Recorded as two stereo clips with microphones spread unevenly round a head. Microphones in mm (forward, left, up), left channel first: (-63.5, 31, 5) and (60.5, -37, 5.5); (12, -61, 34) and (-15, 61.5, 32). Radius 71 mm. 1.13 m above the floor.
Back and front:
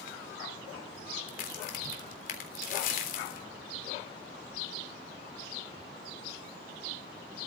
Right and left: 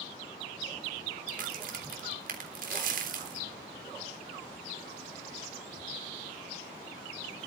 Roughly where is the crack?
Behind left.